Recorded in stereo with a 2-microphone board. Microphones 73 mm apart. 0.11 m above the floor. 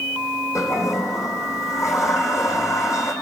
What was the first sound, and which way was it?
A toilet flushing, 45° left (ahead or behind).